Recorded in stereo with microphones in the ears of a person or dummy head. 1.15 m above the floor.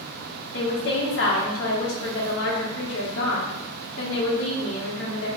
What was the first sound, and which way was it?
A woman speaking, 60° left (ahead or behind).